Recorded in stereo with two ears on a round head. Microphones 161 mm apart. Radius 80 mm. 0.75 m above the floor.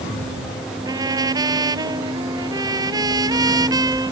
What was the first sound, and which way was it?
A trumpet, 20° right (ahead or behind).